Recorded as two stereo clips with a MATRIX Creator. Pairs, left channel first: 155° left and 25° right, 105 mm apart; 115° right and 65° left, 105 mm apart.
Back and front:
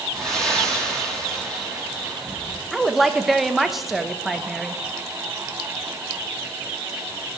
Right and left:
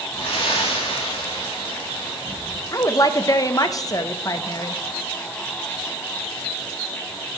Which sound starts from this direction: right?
A woman speaking, at 2.7 s.